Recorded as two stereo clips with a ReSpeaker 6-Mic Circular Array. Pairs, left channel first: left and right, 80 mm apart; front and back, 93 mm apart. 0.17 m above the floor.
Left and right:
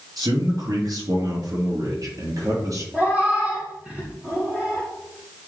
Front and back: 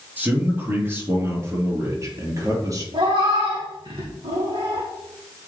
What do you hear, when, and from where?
0.2 s a man speaking: 115° right, 3.5 m; by 2.8 s 130° right, 4.5 m
2.9 s a cat meowing: 160° right, 4 m